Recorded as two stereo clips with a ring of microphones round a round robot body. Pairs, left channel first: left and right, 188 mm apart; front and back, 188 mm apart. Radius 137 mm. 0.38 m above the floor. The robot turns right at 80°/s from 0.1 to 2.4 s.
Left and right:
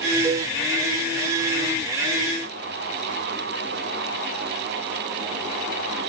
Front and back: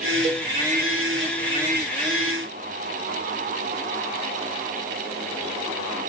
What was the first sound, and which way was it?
A cowbell, 155° right.